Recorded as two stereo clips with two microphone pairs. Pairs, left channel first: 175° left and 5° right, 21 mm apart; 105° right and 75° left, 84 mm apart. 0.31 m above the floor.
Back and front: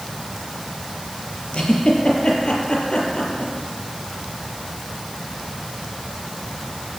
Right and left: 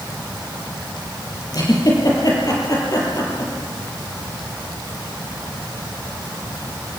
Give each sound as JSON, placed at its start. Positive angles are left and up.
{"t": 1.5, "sound": "a giggle", "azimuth_deg": -150, "distance_m": 6.0}